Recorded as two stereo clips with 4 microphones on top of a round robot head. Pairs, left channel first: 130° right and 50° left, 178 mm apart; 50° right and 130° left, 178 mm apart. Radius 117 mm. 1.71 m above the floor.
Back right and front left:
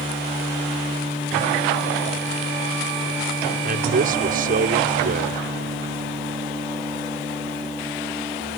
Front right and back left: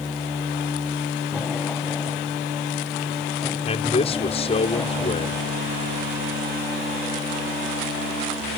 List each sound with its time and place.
3.7 s a man speaking: 10° left